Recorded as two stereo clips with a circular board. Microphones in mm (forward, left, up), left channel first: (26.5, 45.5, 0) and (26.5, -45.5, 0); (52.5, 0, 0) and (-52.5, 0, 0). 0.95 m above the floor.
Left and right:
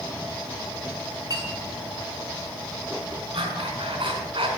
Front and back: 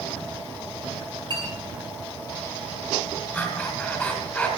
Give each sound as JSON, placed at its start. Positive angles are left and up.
{"t": 1.3, "sound": "a clink", "azimuth_deg": -135, "distance_m": 7.0}
{"t": 3.3, "sound": "breathing", "azimuth_deg": -80, "distance_m": 4.0}